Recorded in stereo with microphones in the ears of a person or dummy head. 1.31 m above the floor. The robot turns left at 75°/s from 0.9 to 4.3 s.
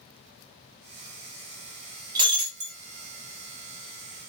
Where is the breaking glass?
35° right, 0.8 m; by 2.8 s 80° right, 0.8 m.